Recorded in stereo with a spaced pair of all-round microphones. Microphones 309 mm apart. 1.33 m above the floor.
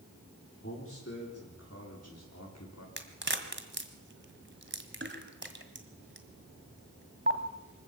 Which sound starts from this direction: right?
A crack, at 3.0 s.